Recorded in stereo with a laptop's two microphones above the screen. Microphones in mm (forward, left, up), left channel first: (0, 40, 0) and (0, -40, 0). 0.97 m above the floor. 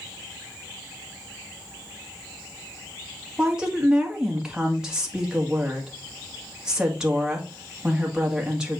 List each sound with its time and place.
3.4 s a woman speaking: 10° right (ahead or behind), 1.9 m